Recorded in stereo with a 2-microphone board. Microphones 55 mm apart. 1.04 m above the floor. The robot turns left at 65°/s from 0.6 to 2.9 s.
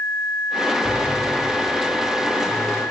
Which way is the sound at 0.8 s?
105° left.